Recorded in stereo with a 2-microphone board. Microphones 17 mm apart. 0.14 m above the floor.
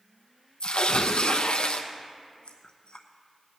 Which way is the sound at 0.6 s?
65° left (ahead or behind).